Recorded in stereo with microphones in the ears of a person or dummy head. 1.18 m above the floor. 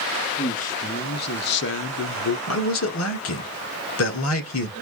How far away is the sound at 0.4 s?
About 1.3 m.